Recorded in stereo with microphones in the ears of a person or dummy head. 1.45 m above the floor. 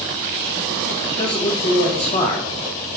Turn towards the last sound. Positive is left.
turn(degrees=30)  # may be behind; listen again after turning